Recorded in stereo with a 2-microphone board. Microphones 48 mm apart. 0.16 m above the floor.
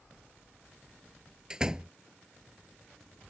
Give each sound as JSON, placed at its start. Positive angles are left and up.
{"t": 1.5, "sound": "a door slam", "side_deg": -15}